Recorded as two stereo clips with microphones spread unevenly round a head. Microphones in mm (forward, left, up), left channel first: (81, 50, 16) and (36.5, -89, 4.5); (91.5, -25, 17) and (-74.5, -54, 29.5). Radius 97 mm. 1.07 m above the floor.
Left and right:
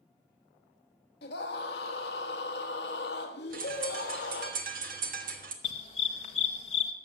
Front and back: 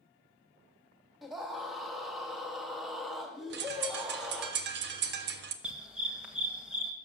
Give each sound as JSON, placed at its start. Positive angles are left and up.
{"t": 1.2, "sound": "a scream", "azimuth_deg": 100, "distance_m": 1.6}
{"t": 3.5, "sound": "a bird", "azimuth_deg": -155, "distance_m": 1.3}
{"t": 5.6, "sound": "a dog barking", "azimuth_deg": 110, "distance_m": 1.3}